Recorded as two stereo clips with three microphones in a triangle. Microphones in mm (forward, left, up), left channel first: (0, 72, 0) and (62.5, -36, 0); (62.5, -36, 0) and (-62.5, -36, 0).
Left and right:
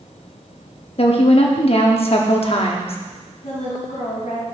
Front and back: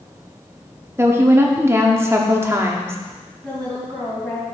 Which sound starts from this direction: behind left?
A woman speaking, at 1.0 s.